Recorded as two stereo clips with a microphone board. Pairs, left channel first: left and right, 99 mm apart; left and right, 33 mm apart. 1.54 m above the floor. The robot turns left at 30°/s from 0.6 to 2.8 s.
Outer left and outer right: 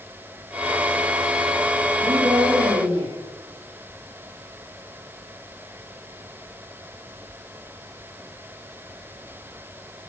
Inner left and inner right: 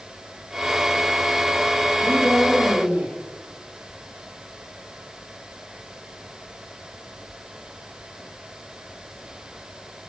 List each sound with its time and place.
2.0 s a woman speaking: 65° right (ahead or behind), 4 m; by 3.1 s 90° right, 4 m